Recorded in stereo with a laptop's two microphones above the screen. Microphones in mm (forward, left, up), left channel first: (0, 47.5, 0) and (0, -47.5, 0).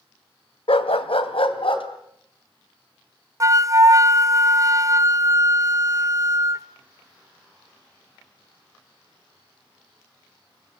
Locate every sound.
0.7 s a dog barking: 75° left (ahead or behind), 1.6 m; by 1.9 s 70° left (ahead or behind), 3 m
3.4 s a flute: 35° right (ahead or behind), 0.6 m